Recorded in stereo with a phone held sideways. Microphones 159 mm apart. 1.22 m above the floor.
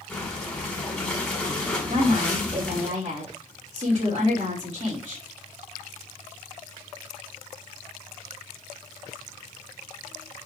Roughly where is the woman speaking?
Right.